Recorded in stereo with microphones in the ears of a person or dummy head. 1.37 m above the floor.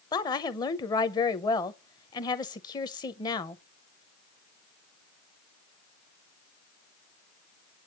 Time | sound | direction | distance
0.1 | a woman speaking | 25° left (ahead or behind) | 0.8 m